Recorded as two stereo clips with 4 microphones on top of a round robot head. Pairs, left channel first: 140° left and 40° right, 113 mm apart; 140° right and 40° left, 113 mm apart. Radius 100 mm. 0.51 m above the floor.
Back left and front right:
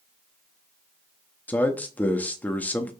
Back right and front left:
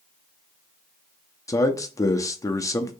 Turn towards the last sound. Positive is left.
turn(degrees=-160)